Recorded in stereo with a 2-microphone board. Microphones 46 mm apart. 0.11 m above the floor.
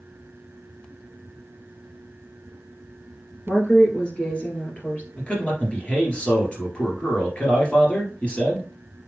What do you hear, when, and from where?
3.5 s a woman speaking: 15° left (ahead or behind), 2 m; by 5.1 s 35° left (ahead or behind), 2.5 m
5.2 s a man speaking: 25° left (ahead or behind), 2.5 m